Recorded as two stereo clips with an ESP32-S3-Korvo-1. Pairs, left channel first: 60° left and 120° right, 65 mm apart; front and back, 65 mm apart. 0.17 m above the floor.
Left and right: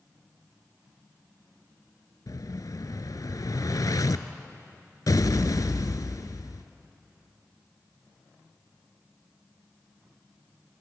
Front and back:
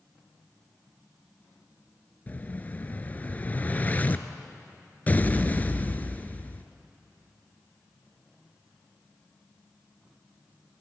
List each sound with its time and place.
2.3 s an explosion: 60° left, 0.8 m